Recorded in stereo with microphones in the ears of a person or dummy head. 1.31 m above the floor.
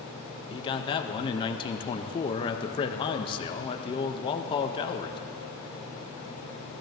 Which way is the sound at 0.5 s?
20° left (ahead or behind).